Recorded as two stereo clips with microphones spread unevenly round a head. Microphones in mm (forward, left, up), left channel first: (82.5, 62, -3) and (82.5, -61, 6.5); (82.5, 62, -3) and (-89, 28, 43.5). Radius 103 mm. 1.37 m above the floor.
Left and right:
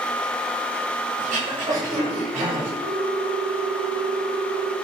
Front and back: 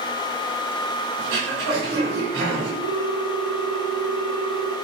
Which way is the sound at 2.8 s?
165° right.